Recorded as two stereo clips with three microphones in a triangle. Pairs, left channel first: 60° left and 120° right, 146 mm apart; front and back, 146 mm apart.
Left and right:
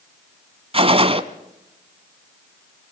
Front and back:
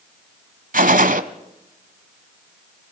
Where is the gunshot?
165° right, 1.2 m.